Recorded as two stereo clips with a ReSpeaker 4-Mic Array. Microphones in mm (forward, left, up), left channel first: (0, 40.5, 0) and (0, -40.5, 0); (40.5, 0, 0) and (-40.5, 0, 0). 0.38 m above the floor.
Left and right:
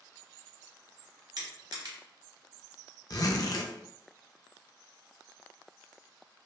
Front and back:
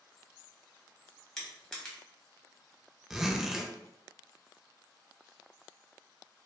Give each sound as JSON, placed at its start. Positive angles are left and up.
{"t": 1.4, "sound": "crushing", "azimuth_deg": -80, "distance_m": 1.1}
{"t": 3.1, "sound": "a zipper", "azimuth_deg": 100, "distance_m": 0.5}